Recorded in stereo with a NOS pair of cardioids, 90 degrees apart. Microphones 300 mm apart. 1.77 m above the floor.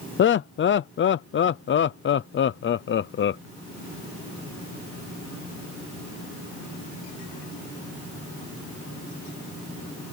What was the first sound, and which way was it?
Laughter, 40° left.